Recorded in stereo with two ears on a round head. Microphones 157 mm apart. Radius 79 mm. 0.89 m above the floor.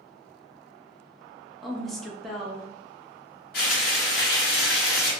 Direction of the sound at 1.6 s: Centre (ahead or behind).